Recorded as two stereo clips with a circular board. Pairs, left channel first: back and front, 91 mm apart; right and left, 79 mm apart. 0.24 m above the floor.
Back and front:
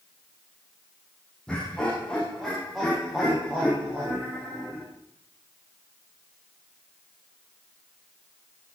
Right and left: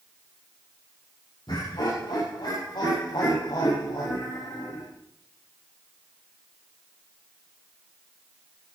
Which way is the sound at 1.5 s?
100° right.